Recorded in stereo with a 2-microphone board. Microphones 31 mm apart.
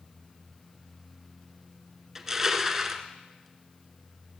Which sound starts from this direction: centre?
Crushing, at 2.1 s.